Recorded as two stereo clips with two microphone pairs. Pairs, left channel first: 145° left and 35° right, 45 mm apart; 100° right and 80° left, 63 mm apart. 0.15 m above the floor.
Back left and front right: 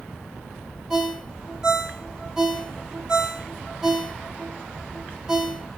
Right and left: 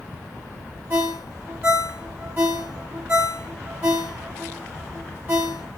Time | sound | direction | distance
0.9 | a ringtone | 45° left | 1.0 m